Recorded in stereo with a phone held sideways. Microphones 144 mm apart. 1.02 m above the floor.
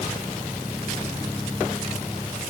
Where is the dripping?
I don't hear dripping.